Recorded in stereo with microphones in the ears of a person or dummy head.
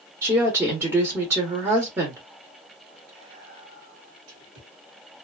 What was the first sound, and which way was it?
A woman speaking, 20° right (ahead or behind).